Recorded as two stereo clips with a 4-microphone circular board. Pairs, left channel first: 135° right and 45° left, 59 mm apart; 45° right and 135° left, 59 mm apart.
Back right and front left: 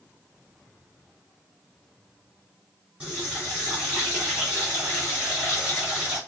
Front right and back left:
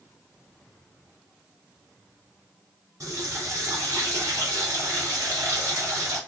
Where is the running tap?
110° left, 2.5 m.